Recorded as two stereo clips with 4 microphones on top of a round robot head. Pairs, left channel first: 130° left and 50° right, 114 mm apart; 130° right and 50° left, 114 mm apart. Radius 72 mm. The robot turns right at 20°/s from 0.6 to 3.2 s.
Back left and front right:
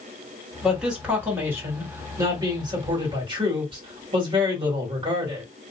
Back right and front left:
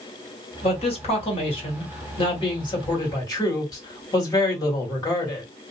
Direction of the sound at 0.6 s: 135° right.